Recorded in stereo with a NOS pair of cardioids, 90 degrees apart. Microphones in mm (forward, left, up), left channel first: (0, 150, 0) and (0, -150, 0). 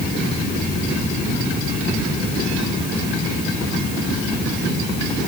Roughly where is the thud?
I don't hear a thud.